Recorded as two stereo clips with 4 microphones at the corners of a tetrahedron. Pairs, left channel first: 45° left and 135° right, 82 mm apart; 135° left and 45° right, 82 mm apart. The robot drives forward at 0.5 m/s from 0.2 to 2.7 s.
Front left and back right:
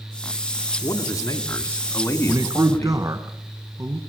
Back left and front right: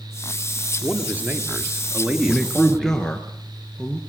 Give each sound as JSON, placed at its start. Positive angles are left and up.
{"t": 0.8, "sound": "a man speaking", "azimuth_deg": 10, "distance_m": 2.5}
{"t": 2.3, "sound": "a man speaking", "azimuth_deg": -140, "distance_m": 1.6}